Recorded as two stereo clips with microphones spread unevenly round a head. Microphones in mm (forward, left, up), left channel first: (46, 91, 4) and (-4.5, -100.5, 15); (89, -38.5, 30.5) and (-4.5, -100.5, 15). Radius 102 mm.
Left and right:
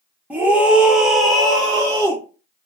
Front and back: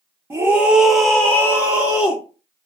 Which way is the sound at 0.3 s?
170° left.